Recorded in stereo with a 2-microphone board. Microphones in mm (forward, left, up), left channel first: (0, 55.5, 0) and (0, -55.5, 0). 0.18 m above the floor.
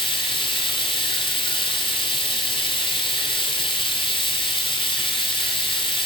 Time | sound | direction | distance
0.0 | running water | 45° left (ahead or behind) | 1.2 m